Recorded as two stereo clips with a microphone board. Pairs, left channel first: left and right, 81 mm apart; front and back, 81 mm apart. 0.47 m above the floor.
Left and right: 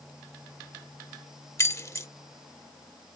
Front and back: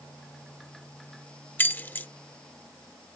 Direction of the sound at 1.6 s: 55° left.